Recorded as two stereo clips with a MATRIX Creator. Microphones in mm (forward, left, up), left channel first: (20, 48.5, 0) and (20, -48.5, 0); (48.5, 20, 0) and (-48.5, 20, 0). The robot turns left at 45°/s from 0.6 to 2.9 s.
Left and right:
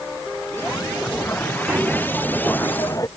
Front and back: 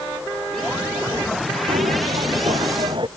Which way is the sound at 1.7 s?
160° right.